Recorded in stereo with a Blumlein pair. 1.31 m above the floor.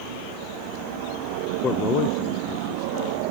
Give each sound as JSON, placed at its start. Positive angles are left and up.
{"t": 1.6, "sound": "a man speaking", "azimuth_deg": 20}